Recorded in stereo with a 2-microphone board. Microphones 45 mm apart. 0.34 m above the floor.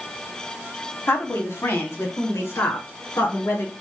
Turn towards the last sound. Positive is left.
turn(degrees=75)  # may be behind; listen again after turning